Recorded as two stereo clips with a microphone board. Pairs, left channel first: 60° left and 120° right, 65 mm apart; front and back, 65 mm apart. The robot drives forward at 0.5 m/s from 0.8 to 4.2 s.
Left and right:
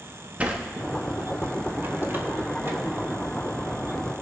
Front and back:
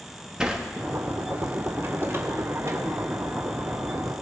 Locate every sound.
0.4 s a sliding door: 120° right, 1.1 m; by 2.8 s 165° right, 1.6 m